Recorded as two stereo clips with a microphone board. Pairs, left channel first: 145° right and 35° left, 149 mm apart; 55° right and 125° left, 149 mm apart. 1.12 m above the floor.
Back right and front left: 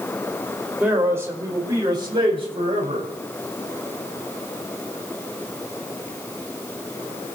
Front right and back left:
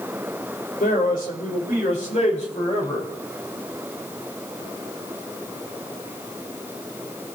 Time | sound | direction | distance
0.8 | a man speaking | 45° right | 5.5 m